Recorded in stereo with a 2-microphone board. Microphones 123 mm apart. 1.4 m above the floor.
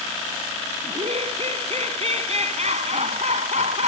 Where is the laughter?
55° right (ahead or behind); by 3.9 s 65° right (ahead or behind).